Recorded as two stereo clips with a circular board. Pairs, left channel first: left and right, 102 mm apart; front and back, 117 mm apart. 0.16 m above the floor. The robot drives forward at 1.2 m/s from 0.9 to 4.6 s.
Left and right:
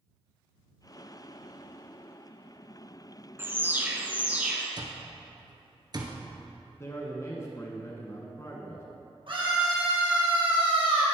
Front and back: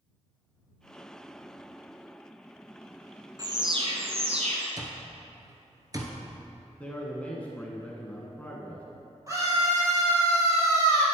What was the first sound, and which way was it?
An alarm, 140° right.